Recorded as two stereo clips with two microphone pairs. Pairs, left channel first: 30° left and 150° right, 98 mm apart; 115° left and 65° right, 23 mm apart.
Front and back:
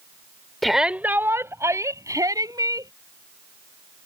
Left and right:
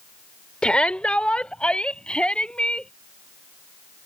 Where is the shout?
115° left; by 2.9 s 160° left.